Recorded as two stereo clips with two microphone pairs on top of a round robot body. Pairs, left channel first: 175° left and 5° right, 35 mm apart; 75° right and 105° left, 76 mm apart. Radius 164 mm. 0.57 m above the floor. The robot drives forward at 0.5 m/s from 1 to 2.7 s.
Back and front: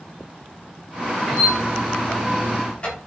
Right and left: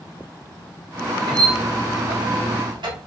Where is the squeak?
65° left, 0.8 m; by 3.0 s 120° left, 0.8 m.